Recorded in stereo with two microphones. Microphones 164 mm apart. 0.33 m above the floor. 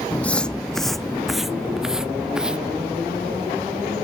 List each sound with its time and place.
0.1 s footsteps: 10° left (ahead or behind); by 2.8 s 5° right (ahead or behind)